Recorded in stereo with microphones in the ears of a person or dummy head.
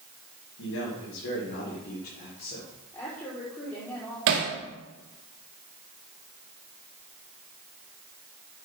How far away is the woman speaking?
About 4.5 m.